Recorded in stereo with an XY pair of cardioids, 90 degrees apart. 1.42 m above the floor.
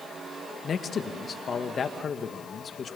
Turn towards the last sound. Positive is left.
turn(degrees=50)